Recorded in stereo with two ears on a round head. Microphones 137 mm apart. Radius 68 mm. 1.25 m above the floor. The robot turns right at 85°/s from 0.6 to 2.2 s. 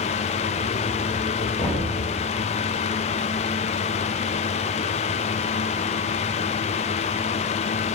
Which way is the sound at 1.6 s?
25° left (ahead or behind).